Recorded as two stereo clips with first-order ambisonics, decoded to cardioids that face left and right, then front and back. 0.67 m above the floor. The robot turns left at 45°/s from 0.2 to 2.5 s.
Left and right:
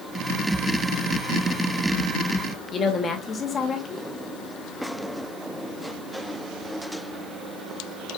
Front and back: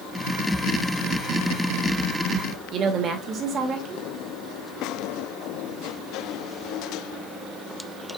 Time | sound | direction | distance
2.7 | a woman speaking | 145° left | 0.7 m